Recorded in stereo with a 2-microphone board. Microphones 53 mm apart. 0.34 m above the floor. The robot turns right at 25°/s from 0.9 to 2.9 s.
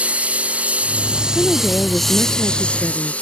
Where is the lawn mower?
25° right; by 3.2 s 25° left.